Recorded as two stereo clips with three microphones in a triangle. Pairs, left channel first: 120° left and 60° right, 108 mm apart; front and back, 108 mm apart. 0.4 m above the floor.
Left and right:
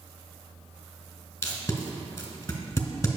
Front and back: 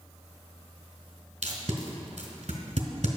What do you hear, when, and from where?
1.4 s tape being pulled: 175° right, 1.7 m